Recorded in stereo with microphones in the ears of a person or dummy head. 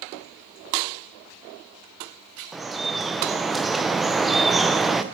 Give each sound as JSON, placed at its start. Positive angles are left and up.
{"t": 2.5, "sound": "dripping", "side_deg": 0, "distance_m": 0.5}